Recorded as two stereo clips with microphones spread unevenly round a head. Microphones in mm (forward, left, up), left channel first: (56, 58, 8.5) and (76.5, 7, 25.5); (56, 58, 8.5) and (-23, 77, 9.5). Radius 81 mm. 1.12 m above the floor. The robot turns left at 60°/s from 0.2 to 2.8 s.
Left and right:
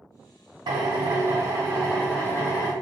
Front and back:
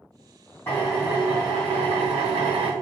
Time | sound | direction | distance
0.7 | a drill | 90° right | 0.6 m